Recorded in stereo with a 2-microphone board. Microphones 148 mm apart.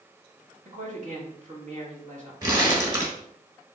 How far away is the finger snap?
I don't hear a finger snap.